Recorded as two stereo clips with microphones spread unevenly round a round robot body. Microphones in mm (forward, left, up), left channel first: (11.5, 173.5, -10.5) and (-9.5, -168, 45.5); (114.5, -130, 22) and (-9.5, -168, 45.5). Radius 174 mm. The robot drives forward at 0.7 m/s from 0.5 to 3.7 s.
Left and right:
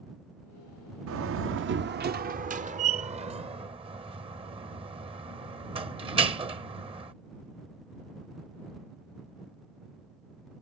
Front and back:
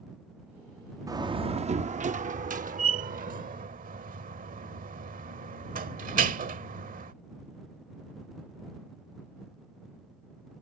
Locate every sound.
1.1 s a door slam: 105° right; by 7.1 s 170° right